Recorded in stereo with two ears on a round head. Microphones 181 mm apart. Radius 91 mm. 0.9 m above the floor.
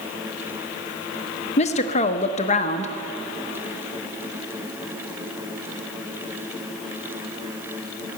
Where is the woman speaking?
35° left (ahead or behind), 0.9 m.